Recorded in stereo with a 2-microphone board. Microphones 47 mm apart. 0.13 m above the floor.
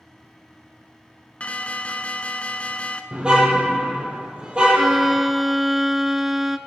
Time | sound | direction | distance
1.4 | an alarm | 30° left (ahead or behind) | 0.8 m
3.1 | a car horn | 20° right (ahead or behind) | 2 m
4.7 | a violin | 5° right (ahead or behind) | 0.6 m